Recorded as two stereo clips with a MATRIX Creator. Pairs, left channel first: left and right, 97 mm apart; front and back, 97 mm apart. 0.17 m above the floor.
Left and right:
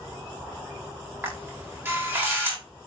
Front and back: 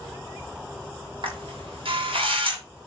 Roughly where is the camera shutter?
Behind right.